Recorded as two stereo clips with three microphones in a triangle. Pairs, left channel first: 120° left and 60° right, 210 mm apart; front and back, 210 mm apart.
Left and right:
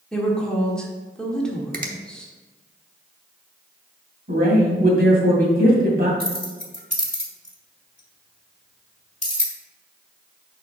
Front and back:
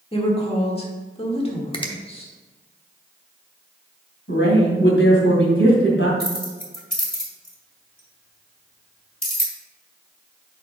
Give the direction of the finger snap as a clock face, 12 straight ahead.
2 o'clock.